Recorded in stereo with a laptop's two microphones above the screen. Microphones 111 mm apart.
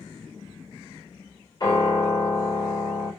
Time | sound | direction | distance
1.6 | a piano | 40° left (ahead or behind) | 3.5 m